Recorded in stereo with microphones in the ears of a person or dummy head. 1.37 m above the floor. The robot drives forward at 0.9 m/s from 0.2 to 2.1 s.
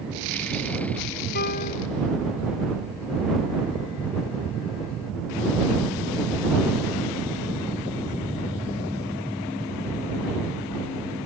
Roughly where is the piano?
Left.